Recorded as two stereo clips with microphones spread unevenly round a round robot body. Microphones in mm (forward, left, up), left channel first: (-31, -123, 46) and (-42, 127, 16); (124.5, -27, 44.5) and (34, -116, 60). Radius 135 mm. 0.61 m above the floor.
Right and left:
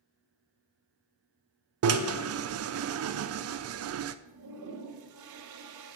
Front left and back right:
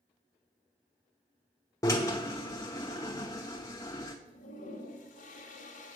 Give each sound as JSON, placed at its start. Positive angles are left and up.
{"t": 1.8, "sound": "a drill", "azimuth_deg": 110, "distance_m": 0.5}
{"t": 4.2, "sound": "a toilet flushing", "azimuth_deg": 65, "distance_m": 1.0}